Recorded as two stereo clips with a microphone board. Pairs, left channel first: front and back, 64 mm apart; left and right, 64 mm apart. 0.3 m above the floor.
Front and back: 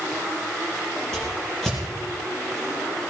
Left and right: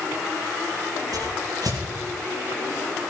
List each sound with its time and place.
1.1 s a whoosh: 80° right, 5.5 m